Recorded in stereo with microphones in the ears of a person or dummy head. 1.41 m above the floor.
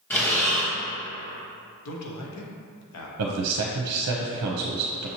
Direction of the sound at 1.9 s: 80° left.